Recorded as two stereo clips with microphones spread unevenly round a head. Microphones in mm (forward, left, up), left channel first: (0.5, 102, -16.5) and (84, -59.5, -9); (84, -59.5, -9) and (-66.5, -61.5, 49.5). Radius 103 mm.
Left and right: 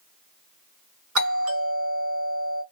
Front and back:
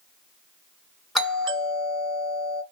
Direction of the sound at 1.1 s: 80° right.